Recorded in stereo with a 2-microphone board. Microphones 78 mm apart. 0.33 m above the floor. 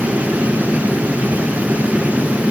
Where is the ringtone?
No ringtone in this recording.